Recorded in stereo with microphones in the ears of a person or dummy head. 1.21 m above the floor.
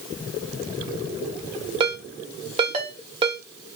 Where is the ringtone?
30° right (ahead or behind), 0.9 m.